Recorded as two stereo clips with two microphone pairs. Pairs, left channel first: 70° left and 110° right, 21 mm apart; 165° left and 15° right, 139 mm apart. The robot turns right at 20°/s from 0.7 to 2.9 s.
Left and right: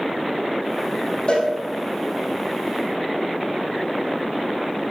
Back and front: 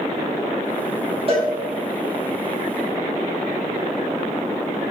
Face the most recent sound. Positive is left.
turn(degrees=65)